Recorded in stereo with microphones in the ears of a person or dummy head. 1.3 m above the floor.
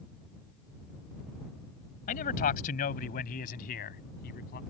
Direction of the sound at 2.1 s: 40° left (ahead or behind).